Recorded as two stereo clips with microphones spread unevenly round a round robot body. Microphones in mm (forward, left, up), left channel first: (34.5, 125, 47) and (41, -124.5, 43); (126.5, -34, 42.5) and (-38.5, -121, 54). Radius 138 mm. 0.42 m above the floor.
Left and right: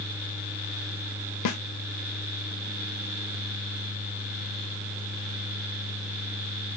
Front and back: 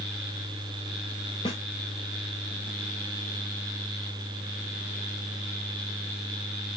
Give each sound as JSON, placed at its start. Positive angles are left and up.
{"t": 1.4, "sound": "a snare drum", "azimuth_deg": 95, "distance_m": 0.6}